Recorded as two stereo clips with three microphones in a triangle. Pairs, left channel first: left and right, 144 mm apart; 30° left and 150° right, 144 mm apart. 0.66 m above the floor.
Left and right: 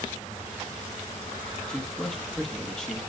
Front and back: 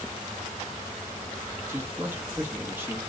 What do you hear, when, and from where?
1.7 s a man speaking: 165° left, 1.1 m